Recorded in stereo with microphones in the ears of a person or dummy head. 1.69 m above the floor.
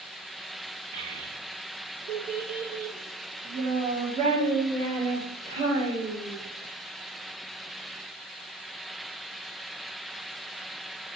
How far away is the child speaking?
About 1.5 m.